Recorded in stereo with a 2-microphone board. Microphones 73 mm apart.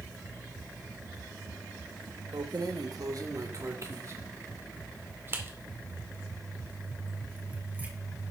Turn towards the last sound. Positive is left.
turn(degrees=-20)  # may be behind; listen again after turning